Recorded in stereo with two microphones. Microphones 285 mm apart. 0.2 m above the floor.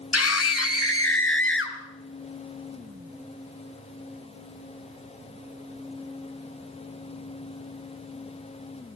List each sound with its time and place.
0.1 s a scream: 55° left (ahead or behind), 2.5 m; by 1.8 s 40° left (ahead or behind), 3.5 m